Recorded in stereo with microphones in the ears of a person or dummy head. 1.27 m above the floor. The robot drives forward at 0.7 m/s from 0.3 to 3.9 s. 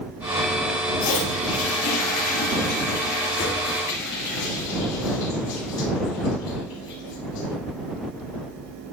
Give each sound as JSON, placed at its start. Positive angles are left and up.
{"t": 1.0, "sound": "a toilet flushing", "side_deg": 65, "distance_m": 2.0}